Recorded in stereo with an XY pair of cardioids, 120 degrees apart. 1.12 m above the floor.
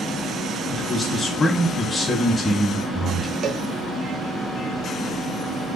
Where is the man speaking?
25° left, 1.0 m.